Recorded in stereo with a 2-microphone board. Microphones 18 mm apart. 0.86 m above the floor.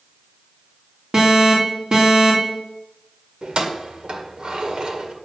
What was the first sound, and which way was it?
An alarm, 50° right (ahead or behind).